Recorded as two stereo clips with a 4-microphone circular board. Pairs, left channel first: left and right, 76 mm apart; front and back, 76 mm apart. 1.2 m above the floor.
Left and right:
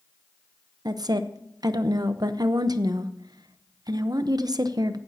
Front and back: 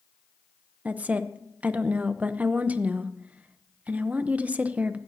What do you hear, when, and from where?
0.8 s a woman speaking: 110° right, 0.8 m